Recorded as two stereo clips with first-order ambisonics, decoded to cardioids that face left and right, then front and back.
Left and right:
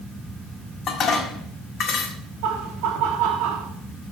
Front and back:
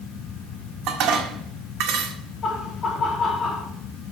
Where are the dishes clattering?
145° left, 1.8 m.